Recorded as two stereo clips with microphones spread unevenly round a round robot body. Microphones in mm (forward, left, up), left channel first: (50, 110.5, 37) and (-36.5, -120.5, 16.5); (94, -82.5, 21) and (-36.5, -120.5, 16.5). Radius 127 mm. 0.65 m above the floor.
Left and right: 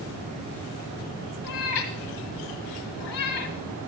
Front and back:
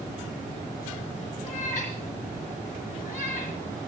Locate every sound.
1.4 s a cat meowing: 95° left, 1.6 m